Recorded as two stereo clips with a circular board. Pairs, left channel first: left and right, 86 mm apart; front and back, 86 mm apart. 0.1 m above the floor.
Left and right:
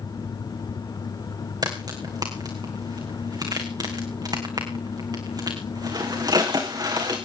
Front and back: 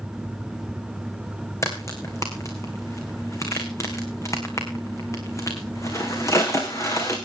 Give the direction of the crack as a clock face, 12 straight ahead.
2 o'clock.